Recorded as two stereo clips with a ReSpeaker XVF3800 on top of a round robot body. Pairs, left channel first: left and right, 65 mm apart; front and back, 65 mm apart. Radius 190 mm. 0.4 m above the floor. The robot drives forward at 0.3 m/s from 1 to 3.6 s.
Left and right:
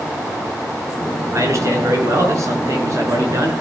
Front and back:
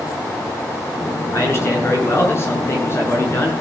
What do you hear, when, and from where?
1.3 s a man speaking: 50° right, 6.5 m; by 3.5 s 55° right, 6 m